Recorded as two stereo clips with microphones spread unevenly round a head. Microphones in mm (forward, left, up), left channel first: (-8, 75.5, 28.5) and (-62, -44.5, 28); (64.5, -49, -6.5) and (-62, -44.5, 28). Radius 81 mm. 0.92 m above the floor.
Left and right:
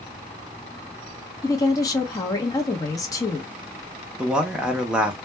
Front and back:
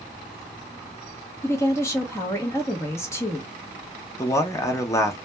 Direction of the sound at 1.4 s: 20° left.